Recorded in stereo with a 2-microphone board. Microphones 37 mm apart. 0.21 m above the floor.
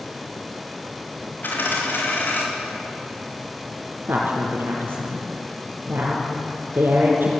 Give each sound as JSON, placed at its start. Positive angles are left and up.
{"t": 1.4, "sound": "a dropped coin", "side_deg": 60, "distance_m": 6.0}
{"t": 4.1, "sound": "a woman speaking", "side_deg": -65, "distance_m": 3.5}